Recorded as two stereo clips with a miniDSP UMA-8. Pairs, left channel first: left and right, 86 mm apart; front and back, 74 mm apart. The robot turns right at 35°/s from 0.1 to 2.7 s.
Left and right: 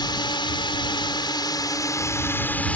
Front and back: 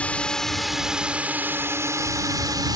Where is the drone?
70° left; by 2.8 s 160° left.